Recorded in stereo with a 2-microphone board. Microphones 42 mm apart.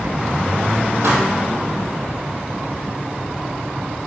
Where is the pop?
60° right (ahead or behind), 2 m.